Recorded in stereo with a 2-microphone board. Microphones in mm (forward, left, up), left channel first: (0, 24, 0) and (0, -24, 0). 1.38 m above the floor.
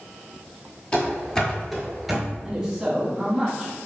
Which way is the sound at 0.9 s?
20° left (ahead or behind).